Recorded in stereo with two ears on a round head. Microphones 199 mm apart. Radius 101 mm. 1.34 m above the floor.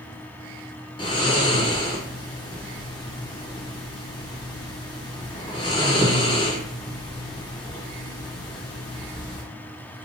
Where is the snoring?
20° left (ahead or behind), 0.9 m.